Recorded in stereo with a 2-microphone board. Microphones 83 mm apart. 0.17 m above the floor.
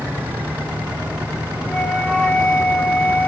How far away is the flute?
About 1.6 m.